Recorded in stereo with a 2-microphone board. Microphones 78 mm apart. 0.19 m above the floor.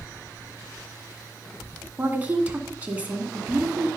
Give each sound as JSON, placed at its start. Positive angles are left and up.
{"t": 2.0, "sound": "a woman speaking", "side_deg": -20, "distance_m": 2.0}